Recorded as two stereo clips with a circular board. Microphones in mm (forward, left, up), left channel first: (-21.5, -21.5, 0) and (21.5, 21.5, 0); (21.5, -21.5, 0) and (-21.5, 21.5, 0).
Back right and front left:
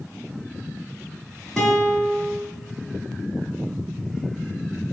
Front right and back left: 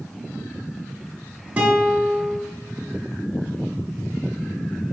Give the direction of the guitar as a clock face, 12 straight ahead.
7 o'clock.